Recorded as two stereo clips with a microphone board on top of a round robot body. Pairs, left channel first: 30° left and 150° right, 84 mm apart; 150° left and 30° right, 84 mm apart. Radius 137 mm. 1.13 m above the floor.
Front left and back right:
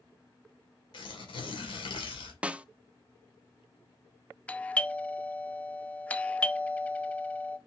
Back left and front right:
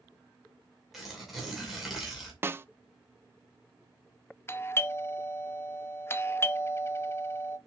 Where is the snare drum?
80° right, 0.7 m.